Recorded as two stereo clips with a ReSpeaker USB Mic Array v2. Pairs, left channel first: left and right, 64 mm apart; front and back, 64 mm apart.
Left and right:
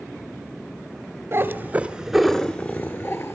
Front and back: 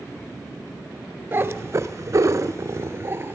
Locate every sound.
1.3 s a cat meowing: 130° right, 1.0 m; by 3.3 s 130° left, 1.2 m